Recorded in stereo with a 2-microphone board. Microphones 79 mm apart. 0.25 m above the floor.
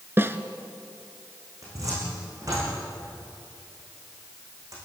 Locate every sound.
0.2 s a snare drum: 30° right (ahead or behind), 1.3 m
1.6 s a cupboard door: 45° right (ahead or behind), 9 m